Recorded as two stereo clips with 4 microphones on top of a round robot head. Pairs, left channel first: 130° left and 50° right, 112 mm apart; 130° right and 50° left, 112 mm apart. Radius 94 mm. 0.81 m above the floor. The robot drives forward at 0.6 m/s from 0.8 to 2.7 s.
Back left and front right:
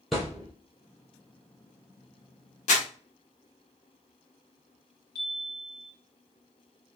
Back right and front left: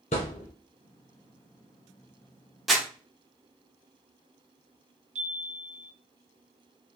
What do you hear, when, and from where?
0.1 s a thud: 140° right, 1.0 m
2.7 s crumpling: 140° left, 1.1 m
5.2 s a chime: 65° left, 1.3 m